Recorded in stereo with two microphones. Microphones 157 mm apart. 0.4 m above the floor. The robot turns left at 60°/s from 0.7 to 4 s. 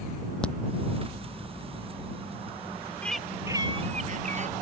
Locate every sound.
0.4 s a crack: 5° left (ahead or behind)
3.0 s a bird: 10° left; by 4.5 s 50° right